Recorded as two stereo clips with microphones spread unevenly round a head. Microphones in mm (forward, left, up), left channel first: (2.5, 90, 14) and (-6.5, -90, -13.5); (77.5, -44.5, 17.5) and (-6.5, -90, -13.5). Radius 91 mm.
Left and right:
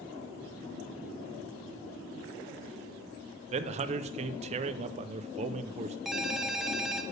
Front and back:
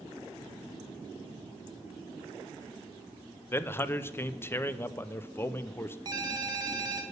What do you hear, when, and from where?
3.5 s a man speaking: 35° right, 0.6 m
6.0 s a ringtone: 160° left, 0.8 m